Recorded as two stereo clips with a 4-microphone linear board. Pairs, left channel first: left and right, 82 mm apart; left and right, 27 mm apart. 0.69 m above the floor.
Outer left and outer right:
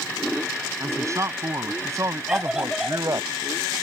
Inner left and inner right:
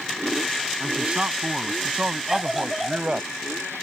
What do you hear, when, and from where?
0.8 s a man speaking: 40° right (ahead or behind); by 3.3 s 45° right (ahead or behind)
2.3 s a scream: 5° right (ahead or behind)